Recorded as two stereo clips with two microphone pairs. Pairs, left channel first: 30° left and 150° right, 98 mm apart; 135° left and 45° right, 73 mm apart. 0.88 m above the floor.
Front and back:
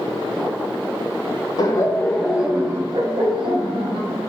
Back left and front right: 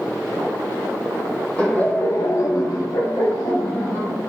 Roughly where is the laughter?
Ahead left.